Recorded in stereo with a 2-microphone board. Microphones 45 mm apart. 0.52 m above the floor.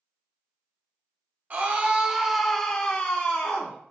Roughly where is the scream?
Right.